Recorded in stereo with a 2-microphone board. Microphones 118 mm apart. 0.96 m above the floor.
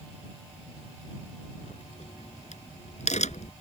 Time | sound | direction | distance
1.6 | a crack | 80° left | ?